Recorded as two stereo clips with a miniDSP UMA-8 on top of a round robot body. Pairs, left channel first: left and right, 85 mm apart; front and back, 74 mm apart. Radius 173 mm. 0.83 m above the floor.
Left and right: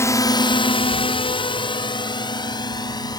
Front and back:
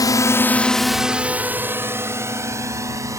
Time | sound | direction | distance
0.0 | a drone | 30° left | ?